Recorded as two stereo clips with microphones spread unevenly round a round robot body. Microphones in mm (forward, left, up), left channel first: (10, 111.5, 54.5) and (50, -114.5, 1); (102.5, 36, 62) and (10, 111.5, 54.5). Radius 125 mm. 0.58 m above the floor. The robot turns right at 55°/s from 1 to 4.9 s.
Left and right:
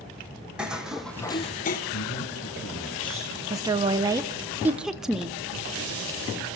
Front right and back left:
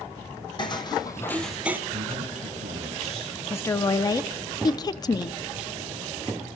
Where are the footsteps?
10° left, 1.9 m; by 1.8 s 70° left, 1.0 m.